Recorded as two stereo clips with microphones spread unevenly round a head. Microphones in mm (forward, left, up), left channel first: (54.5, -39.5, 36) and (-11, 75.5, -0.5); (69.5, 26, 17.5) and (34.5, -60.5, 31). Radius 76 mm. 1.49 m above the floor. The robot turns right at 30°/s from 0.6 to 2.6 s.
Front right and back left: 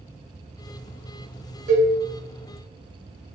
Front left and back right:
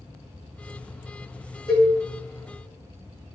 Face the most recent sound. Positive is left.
turn(degrees=135)